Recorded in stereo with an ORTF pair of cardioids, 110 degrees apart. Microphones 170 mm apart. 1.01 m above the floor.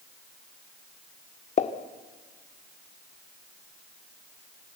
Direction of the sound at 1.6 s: 45° left.